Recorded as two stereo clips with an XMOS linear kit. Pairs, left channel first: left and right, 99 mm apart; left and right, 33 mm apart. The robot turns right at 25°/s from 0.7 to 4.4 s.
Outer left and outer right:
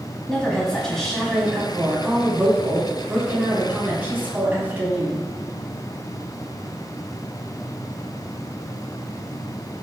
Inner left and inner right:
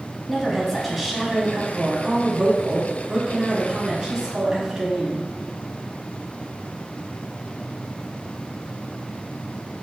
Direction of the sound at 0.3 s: 5° left (ahead or behind).